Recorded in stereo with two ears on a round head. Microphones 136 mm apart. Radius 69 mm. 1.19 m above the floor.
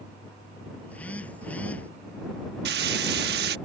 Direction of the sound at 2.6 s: 75° right (ahead or behind).